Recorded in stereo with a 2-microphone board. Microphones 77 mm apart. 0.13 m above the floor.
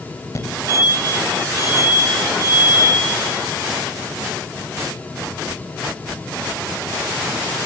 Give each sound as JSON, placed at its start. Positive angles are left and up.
{"t": 0.3, "sound": "a fire alarm", "side_deg": 45, "distance_m": 4.0}